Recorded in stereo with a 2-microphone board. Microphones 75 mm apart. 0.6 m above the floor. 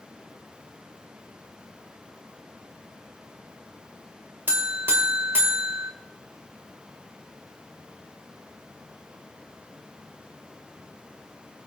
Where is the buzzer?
30° right (ahead or behind), 1.7 m.